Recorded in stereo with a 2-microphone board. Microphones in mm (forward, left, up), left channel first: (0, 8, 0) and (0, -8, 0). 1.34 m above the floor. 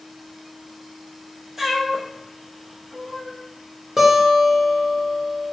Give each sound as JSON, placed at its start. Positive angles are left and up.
{"t": 1.6, "sound": "a cat meowing", "side_deg": -25, "distance_m": 0.7}
{"t": 4.0, "sound": "a guitar", "side_deg": -30, "distance_m": 0.9}